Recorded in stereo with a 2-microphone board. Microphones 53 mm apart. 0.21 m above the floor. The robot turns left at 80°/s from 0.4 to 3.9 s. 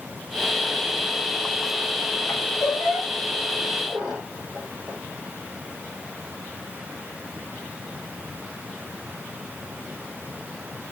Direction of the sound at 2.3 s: 65° left (ahead or behind).